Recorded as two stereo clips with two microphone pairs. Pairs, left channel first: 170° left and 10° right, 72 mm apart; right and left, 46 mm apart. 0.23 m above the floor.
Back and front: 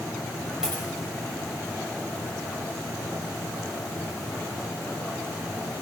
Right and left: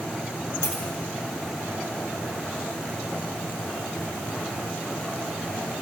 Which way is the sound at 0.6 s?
90° right.